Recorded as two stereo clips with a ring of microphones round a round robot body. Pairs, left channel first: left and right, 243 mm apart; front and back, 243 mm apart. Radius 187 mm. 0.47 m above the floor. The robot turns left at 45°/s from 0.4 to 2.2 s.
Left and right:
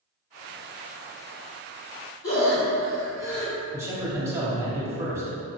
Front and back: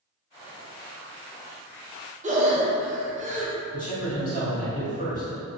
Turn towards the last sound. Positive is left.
turn(degrees=-20)